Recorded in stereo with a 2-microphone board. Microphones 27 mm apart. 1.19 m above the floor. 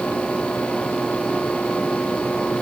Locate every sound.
Only background noise.